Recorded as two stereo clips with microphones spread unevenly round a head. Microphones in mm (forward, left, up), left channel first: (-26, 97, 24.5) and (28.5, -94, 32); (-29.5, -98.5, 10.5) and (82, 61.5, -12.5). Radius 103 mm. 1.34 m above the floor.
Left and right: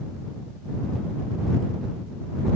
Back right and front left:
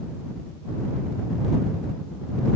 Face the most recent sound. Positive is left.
No sound to turn to.